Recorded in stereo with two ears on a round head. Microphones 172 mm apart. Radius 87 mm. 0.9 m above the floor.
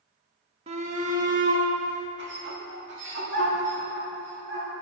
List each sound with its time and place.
0.7 s a shout: 35° right (ahead or behind), 1.4 m; by 4.7 s 75° right (ahead or behind), 3 m